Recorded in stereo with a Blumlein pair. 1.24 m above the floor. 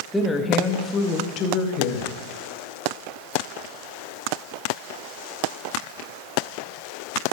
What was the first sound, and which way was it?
A woman speaking, straight ahead.